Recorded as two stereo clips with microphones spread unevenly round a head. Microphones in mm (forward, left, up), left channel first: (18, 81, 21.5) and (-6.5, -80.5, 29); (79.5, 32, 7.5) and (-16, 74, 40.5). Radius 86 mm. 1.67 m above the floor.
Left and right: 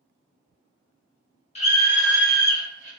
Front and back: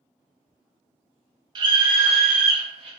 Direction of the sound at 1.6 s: 135° left.